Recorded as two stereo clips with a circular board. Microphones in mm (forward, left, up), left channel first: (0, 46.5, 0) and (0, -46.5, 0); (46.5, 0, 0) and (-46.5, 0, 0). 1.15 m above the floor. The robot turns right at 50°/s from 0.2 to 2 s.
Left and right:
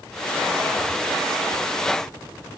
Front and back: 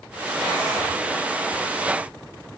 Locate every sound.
Only background noise.